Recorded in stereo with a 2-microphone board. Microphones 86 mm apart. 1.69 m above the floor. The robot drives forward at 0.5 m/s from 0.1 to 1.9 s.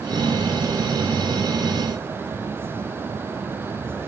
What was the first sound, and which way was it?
Only background noise.